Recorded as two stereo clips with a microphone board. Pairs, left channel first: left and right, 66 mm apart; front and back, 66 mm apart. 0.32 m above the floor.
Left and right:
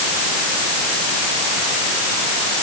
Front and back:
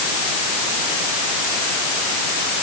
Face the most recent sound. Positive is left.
No sound to turn to.